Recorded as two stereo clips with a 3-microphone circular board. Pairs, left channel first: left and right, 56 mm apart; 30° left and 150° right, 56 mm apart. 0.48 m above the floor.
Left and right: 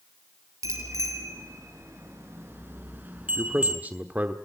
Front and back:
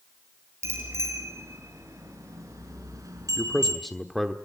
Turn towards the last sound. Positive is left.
turn(degrees=-55)